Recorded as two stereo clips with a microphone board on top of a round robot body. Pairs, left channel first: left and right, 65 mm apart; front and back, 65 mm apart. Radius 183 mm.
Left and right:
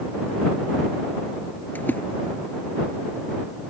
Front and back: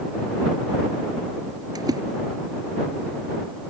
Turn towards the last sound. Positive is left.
turn(degrees=155)